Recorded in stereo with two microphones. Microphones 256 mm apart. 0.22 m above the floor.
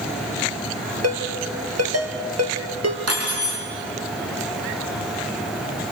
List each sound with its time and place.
1.0 s a ringtone: 75° right (ahead or behind), 2.5 m
3.1 s cutlery clinking: 70° right (ahead or behind), 5 m